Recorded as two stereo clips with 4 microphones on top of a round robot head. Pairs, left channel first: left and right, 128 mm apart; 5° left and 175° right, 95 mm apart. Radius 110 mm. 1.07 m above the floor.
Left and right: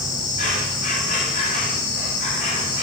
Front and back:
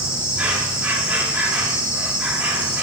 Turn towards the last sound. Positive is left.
turn(degrees=105)